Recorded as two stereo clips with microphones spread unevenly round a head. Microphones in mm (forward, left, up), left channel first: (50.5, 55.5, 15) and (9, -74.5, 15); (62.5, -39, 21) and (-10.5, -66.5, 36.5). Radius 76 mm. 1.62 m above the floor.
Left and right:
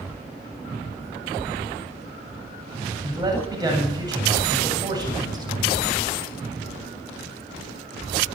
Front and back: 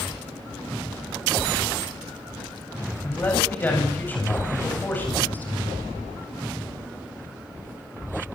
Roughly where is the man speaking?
Ahead right.